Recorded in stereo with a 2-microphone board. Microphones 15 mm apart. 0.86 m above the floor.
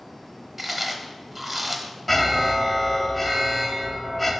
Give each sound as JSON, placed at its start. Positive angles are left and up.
{"t": 0.6, "sound": "chewing", "side_deg": -20, "distance_m": 0.8}
{"t": 2.1, "sound": "an alarm", "side_deg": 10, "distance_m": 0.9}